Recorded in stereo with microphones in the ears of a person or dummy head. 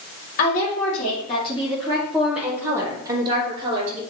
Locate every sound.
0.4 s a woman speaking: 50° left (ahead or behind), 3 m; by 4.0 s 40° right (ahead or behind), 3 m